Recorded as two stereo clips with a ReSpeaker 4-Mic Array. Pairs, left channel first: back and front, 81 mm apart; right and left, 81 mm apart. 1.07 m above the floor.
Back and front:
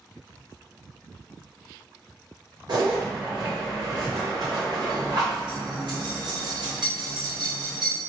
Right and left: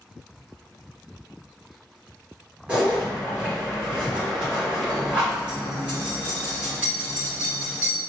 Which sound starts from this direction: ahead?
A zipper, at 2.7 s.